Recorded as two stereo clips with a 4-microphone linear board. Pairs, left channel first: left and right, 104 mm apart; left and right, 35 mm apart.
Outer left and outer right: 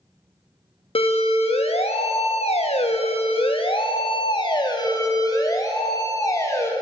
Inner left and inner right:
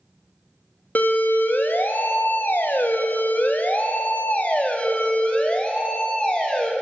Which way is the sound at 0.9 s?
60° left (ahead or behind).